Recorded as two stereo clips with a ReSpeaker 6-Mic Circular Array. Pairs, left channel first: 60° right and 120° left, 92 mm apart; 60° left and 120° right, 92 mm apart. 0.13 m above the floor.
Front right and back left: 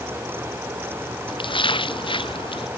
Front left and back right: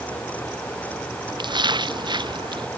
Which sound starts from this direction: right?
A splash, at 1.3 s.